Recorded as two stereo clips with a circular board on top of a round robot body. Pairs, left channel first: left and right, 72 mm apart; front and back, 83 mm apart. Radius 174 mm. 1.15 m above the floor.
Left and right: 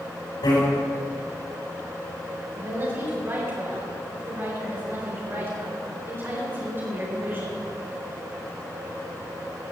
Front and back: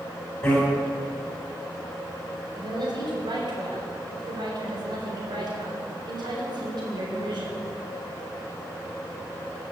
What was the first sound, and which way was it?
A bicycle bell, 80° left.